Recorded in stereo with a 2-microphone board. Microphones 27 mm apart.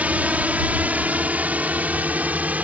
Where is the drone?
65° right (ahead or behind); by 2.6 s 75° right (ahead or behind).